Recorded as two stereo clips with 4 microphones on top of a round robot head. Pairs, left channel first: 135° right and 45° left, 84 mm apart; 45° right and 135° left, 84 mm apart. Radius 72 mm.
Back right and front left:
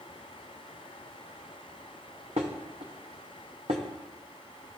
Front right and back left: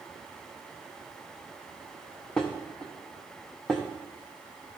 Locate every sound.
2.4 s dishes clattering: 35° left, 0.5 m